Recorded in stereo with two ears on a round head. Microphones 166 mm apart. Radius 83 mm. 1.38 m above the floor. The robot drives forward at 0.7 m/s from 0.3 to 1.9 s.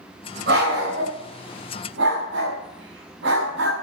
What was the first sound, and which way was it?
A dog barking, 60° right (ahead or behind).